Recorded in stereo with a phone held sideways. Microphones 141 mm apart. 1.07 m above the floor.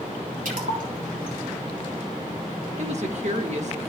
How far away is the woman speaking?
About 1.3 m.